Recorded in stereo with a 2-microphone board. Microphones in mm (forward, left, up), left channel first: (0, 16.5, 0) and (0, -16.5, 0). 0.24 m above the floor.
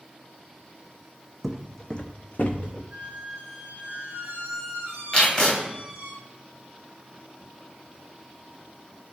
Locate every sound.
1.4 s footsteps: centre (ahead or behind), 0.5 m; by 2.8 s 60° left (ahead or behind), 0.9 m
2.9 s a squeak: 60° right (ahead or behind), 1.2 m
5.1 s tape being pulled: 15° left (ahead or behind), 1.5 m